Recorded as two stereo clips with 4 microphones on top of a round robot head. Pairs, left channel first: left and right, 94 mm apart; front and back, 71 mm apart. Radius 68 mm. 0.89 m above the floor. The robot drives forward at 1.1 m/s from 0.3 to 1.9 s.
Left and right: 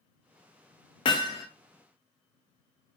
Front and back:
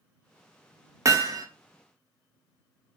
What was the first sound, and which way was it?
Hammering, 135° left.